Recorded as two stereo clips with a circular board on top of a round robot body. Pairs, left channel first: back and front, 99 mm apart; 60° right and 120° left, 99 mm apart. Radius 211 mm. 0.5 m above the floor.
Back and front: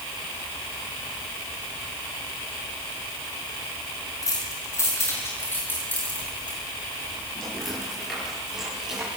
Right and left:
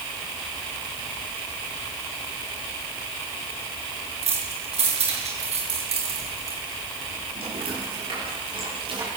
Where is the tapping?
No tapping in this recording.